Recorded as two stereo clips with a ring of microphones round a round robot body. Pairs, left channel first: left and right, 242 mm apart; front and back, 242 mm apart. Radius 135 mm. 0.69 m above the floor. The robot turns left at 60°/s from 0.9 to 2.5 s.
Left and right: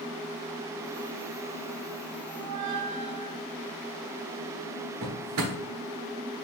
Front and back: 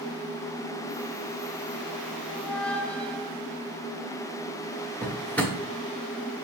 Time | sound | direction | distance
2.3 | a squeak | 70° right | 1.3 m
5.0 | a drawer | 85° right | 1.0 m